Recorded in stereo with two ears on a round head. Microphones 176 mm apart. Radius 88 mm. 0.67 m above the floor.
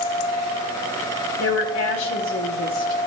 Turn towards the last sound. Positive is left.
turn(degrees=70)  # may be behind; listen again after turning